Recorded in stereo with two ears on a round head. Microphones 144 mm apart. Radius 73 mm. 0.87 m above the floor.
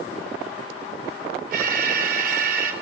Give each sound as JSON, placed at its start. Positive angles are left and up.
{"t": 1.5, "sound": "an alarm", "side_deg": -60, "distance_m": 3.0}